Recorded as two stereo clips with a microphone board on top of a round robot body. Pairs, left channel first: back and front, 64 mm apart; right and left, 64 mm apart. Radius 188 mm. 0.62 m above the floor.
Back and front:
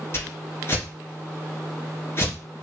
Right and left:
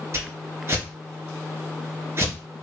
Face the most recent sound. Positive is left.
turn(degrees=130)